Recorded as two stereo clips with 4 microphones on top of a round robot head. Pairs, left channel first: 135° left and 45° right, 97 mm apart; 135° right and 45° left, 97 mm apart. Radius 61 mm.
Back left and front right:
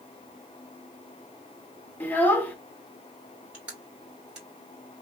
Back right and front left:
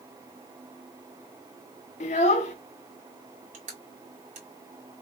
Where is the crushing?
35° left, 2 m.